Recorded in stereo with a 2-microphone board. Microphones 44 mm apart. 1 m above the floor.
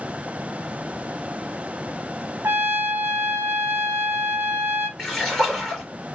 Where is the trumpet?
55° right (ahead or behind), 1.1 m.